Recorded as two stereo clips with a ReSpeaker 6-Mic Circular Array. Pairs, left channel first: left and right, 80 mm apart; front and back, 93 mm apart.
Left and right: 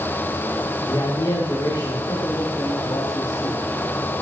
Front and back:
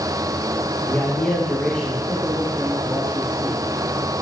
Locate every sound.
0.9 s a man speaking: 65° left, 1.9 m; by 3.6 s 100° left, 3 m